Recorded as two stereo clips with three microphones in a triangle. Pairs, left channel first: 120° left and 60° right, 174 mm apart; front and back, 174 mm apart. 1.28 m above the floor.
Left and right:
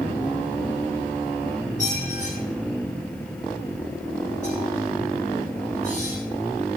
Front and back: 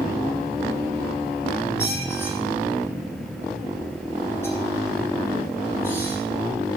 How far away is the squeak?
About 7 m.